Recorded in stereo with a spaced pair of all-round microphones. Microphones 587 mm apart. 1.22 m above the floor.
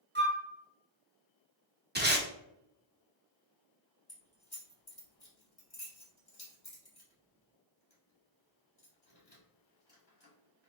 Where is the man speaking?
I don't hear a man speaking.